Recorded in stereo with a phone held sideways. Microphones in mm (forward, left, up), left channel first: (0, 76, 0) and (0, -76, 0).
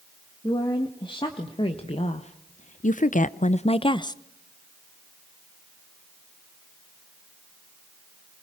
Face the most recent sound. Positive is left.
turn(degrees=25)  # may be behind; listen again after turning